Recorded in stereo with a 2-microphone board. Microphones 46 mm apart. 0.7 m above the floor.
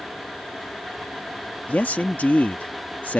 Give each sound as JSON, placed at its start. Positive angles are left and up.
{"t": 1.7, "sound": "a man speaking", "side_deg": 40}